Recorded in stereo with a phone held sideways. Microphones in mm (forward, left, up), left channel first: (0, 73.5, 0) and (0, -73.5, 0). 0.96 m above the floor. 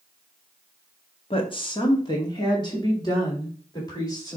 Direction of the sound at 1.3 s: 35° left (ahead or behind).